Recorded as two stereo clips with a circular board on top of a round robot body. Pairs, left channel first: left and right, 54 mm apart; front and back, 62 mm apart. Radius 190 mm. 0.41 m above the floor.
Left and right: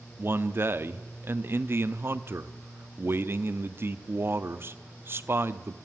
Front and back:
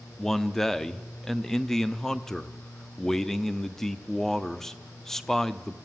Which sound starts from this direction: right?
A man speaking, at 0.2 s.